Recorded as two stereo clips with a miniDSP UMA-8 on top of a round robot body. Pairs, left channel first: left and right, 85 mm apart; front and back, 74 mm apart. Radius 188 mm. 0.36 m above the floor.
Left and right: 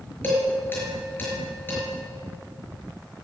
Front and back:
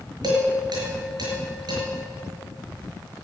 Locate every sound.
0.2 s dishes clattering: 155° left, 5.5 m